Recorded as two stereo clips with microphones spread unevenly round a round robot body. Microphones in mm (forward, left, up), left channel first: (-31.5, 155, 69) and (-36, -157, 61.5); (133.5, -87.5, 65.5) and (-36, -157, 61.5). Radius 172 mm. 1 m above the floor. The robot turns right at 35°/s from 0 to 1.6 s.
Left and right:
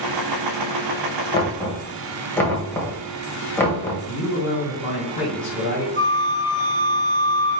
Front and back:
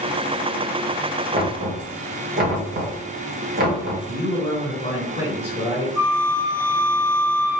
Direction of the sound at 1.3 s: 165° left.